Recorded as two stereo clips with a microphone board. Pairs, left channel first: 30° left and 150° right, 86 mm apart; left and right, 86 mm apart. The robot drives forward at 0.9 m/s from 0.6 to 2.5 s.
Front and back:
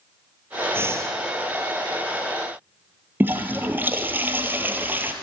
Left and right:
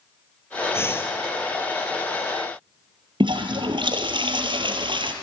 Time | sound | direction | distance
0.7 | breathing | 150° left | 1.4 m
3.2 | a toilet flushing | 85° right | 1.4 m